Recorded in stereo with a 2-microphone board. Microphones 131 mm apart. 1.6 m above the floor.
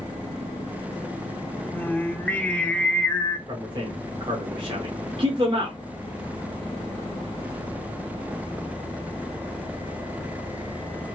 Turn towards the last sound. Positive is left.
turn(degrees=-40)  # may be behind; listen again after turning